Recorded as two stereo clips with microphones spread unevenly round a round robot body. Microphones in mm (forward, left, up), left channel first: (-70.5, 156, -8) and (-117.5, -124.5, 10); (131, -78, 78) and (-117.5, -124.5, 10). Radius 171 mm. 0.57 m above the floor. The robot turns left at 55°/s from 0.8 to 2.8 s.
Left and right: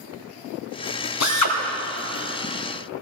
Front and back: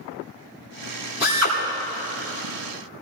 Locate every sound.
1.2 s a drill: 110° left, 3 m; by 1.6 s 90° left, 3 m